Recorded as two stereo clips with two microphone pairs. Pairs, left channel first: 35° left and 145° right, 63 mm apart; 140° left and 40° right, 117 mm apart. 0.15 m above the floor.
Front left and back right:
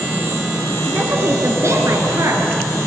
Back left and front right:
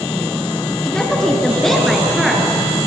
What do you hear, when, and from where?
0.8 s a woman speaking: 140° right, 1.2 m; by 2.5 s 130° right, 2 m